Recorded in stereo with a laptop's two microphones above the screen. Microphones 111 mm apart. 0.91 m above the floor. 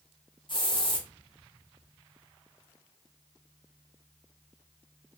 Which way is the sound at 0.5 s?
45° left (ahead or behind).